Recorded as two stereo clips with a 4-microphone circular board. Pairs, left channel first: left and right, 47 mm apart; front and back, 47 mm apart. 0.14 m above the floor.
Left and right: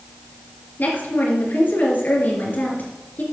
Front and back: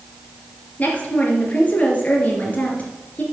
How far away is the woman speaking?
About 3 m.